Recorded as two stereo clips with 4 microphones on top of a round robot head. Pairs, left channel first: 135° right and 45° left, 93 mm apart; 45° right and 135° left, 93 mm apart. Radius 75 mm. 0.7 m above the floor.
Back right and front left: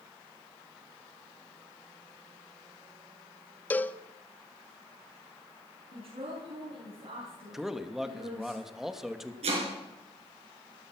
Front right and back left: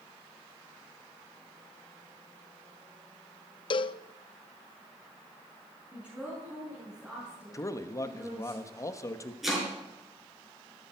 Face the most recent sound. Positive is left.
turn(degrees=50)